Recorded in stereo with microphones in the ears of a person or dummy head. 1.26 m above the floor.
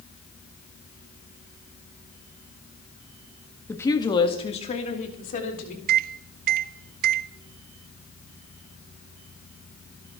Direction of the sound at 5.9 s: 55° right (ahead or behind).